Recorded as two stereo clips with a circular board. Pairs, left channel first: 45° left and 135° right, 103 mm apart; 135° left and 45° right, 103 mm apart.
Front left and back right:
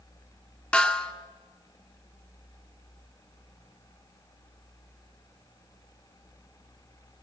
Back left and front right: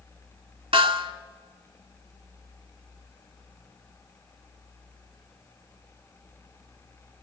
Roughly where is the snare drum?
Ahead right.